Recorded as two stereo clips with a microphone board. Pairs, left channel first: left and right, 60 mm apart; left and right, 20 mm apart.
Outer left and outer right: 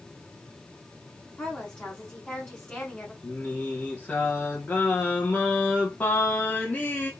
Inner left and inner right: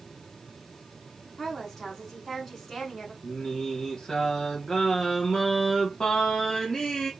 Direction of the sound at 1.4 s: 20° left (ahead or behind).